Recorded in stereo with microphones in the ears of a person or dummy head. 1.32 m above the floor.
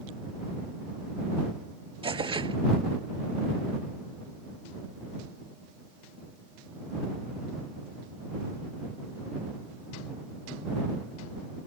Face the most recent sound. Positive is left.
turn(degrees=-25)  # may be behind; listen again after turning